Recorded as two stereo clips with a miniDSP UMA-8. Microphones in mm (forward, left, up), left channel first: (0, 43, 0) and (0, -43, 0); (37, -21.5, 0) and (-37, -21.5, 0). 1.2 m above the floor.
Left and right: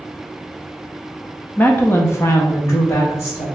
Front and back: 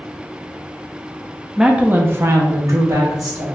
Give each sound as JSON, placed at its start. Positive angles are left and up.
{"t": 1.6, "sound": "a woman speaking", "azimuth_deg": 105, "distance_m": 0.5}